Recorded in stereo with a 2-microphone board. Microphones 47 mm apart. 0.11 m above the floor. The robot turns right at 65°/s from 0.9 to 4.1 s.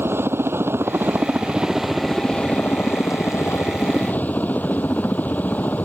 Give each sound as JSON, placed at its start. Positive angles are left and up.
{"t": 0.0, "sound": "a helicopter", "azimuth_deg": -65}